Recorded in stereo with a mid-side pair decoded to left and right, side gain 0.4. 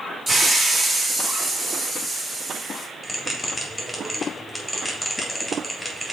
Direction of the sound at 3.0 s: 5° left.